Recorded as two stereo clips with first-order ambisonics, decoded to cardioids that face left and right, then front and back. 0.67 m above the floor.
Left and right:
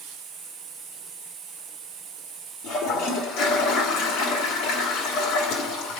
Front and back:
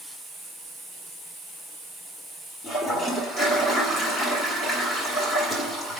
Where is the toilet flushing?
65° left, 2 m.